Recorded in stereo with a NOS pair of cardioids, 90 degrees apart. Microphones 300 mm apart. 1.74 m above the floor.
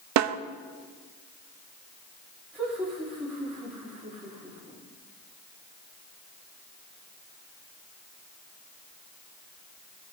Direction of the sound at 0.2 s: 65° right.